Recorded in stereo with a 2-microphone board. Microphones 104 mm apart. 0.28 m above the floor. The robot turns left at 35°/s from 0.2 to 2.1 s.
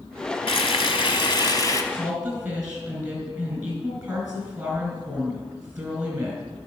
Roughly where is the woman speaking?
Centre.